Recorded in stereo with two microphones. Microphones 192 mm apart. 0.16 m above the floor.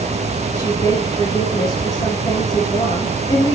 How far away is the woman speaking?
About 4 m.